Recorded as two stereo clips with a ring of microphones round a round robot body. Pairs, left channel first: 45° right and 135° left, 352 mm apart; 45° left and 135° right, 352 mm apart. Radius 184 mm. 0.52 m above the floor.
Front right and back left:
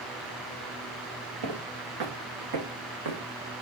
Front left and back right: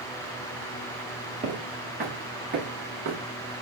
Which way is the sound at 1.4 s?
155° left.